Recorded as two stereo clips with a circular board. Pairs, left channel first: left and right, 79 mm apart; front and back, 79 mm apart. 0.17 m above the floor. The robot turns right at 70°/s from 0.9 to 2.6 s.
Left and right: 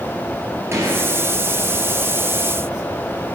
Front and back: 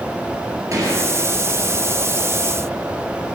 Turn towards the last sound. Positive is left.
turn(degrees=-20)